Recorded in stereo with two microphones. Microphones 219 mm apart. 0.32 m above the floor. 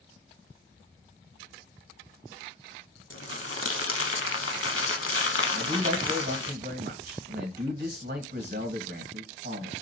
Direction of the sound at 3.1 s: 75° left (ahead or behind).